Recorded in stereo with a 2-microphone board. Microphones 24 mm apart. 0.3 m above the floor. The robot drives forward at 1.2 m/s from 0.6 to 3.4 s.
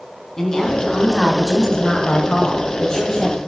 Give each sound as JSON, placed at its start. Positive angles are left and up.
{"t": 0.4, "sound": "a woman speaking", "side_deg": 20, "distance_m": 2.5}